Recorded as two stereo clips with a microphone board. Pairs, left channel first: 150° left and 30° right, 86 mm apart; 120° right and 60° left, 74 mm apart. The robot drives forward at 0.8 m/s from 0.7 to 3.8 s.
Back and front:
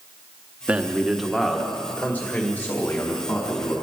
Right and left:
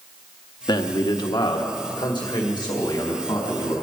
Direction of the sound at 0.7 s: 105° right.